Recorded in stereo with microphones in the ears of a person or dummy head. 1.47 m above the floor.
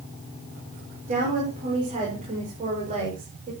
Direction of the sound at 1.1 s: 35° right (ahead or behind).